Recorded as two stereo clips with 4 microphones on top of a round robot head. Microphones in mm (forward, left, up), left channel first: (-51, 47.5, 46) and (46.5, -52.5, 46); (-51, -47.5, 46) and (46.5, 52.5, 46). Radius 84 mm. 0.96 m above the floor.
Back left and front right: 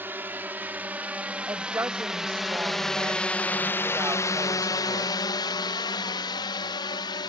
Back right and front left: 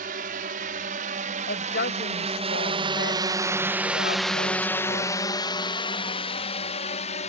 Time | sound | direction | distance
0.0 | a drone | 30° left | ?
1.5 | a woman speaking | 120° right | ?